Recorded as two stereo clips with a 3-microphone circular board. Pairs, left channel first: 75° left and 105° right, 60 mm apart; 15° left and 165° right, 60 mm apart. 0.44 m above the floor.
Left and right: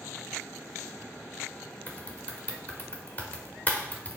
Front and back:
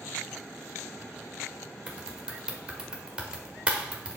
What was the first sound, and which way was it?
Typing on a keyboard, 125° left.